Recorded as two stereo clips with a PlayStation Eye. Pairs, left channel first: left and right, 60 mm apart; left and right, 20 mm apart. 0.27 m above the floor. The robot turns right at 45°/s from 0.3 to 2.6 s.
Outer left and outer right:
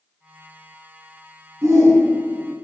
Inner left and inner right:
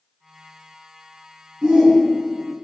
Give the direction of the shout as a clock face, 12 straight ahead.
2 o'clock.